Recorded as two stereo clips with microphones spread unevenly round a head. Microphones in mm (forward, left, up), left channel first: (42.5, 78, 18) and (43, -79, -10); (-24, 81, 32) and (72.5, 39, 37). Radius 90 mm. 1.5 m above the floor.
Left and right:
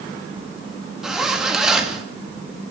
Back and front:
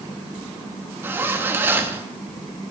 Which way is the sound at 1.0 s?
15° left.